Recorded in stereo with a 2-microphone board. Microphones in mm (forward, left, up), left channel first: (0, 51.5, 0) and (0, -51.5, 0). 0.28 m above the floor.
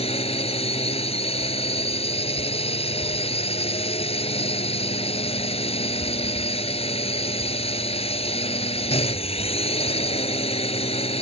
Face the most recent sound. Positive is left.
turn(degrees=75)  # may be behind; listen again after turning